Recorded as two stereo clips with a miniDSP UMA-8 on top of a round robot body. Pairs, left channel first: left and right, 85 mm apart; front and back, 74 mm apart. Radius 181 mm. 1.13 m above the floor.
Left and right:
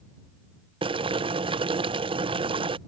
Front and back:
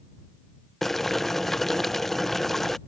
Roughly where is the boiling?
Right.